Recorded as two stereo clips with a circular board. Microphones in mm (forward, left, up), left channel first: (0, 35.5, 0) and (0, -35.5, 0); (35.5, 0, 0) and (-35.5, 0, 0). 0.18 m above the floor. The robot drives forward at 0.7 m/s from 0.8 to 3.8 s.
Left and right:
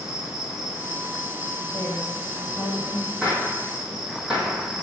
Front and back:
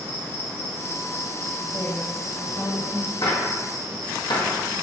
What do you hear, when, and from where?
0.0 s an insect: 20° right, 1.9 m; by 4.8 s 165° right, 1.9 m
1.6 s a woman speaking: 5° left, 1.2 m; by 3.1 s 165° left, 1.0 m
3.2 s a gunshot: 10° right, 1.9 m; by 4.6 s 15° right, 1.5 m